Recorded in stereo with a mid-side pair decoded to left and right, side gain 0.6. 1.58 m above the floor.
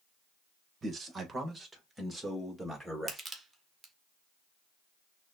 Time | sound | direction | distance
0.8 | a man speaking | 30° right | 1.3 m
3.1 | crushing | 15° right | 1.1 m